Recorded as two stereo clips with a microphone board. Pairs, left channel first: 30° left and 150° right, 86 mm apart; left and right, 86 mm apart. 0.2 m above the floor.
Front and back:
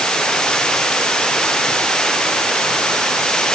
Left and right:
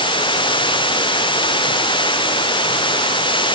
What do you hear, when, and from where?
0.0 s running water: 110° left